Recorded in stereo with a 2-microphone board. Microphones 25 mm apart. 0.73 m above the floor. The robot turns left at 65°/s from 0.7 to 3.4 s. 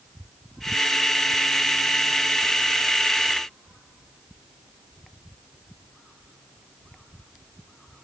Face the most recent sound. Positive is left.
No sound to turn to.